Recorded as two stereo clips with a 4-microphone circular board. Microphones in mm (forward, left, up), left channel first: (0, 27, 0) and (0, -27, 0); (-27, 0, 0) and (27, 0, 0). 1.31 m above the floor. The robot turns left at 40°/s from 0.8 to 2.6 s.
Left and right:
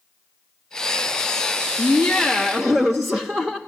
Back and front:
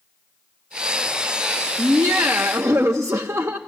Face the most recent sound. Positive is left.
turn(degrees=-25)